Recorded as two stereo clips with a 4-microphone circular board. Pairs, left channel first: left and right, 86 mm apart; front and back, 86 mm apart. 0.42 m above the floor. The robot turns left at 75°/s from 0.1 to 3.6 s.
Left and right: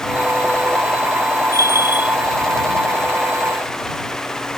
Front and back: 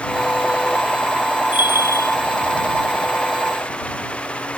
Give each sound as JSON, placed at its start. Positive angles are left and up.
{"t": 1.5, "sound": "a bell", "azimuth_deg": -115}